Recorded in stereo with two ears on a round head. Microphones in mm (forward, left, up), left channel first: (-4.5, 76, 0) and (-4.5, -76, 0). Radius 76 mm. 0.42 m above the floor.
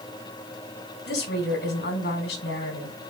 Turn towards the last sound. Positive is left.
turn(degrees=70)  # may be behind; listen again after turning